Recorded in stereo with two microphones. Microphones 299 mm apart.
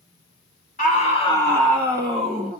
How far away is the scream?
About 1.3 m.